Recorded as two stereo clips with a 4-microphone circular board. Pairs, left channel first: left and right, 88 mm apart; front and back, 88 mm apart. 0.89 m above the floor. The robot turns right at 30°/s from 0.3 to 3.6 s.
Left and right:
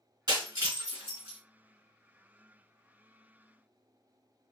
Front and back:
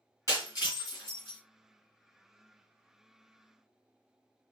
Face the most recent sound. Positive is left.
turn(degrees=45)